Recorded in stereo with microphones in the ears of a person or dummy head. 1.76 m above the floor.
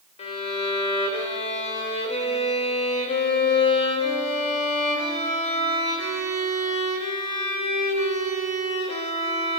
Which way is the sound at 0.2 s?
40° left (ahead or behind).